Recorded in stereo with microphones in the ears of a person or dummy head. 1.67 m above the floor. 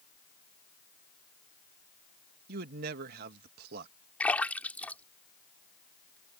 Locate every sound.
2.5 s a man speaking: 60° right (ahead or behind)
4.2 s a splash: 5° left (ahead or behind)